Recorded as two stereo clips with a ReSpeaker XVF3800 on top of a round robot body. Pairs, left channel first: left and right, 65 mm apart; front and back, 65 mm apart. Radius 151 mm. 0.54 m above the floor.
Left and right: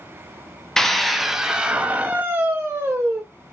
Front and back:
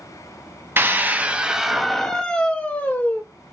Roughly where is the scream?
Behind.